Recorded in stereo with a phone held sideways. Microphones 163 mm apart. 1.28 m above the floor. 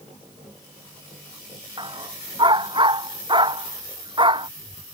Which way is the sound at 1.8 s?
30° right (ahead or behind).